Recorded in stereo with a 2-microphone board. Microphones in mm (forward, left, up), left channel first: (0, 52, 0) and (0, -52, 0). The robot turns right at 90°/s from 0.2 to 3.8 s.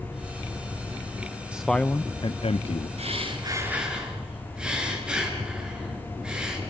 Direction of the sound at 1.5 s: 15° right.